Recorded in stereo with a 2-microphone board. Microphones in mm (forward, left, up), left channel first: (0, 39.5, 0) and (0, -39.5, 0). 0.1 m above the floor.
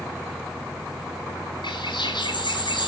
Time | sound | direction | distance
1.6 | a bird | 80° left | 2.5 m